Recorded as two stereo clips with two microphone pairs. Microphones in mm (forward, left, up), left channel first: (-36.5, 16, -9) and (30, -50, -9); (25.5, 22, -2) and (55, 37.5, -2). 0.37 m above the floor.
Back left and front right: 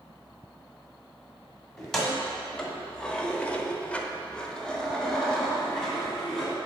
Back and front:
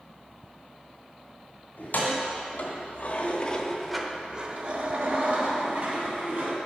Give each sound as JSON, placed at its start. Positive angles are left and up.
{"t": 1.8, "sound": "keys jangling", "azimuth_deg": -140, "distance_m": 1.5}